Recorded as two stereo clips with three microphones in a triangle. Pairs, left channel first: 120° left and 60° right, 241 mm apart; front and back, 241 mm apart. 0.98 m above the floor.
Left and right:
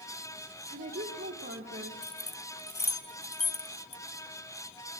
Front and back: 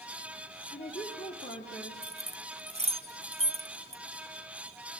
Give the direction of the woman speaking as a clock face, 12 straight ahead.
1 o'clock.